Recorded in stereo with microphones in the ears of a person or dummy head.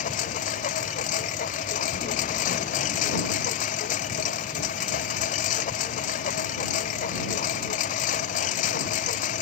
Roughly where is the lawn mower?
Left.